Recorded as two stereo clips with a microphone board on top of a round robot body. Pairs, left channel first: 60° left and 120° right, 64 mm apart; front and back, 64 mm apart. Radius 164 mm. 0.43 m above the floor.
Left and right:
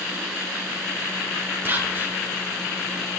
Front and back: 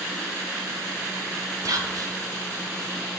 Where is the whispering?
175° right, 2.5 m.